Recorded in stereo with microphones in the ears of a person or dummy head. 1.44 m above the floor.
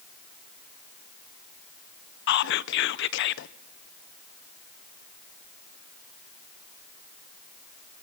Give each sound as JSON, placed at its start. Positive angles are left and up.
{"t": 2.3, "sound": "whispering", "side_deg": 65, "distance_m": 0.6}